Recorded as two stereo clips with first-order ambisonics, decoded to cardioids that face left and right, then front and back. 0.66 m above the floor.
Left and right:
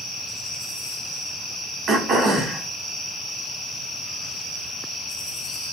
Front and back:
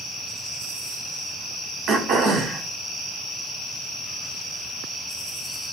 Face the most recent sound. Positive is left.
turn(degrees=-145)